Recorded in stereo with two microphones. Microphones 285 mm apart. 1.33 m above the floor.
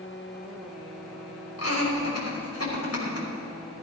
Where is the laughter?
60° left (ahead or behind), 5.5 m.